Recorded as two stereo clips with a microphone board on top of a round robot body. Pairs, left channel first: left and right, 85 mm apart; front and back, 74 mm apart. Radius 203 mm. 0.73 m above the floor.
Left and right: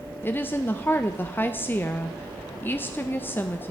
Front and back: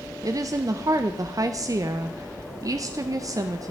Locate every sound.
0.2 s a woman speaking: 155° left, 0.5 m